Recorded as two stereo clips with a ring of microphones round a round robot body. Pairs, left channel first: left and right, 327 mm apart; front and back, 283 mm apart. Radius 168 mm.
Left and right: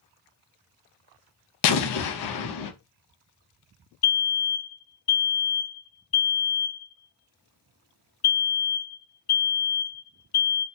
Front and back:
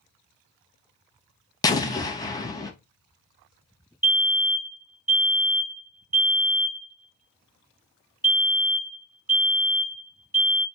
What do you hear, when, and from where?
1.6 s an explosion: 75° left, 0.6 m
4.0 s a fire alarm: 100° left, 2 m